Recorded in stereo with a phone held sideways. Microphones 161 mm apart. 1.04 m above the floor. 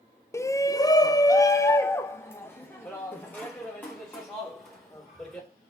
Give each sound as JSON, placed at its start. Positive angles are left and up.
{"t": 0.3, "sound": "a shout", "side_deg": 15, "distance_m": 0.6}